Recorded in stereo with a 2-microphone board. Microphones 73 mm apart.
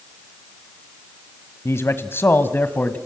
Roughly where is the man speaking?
Left.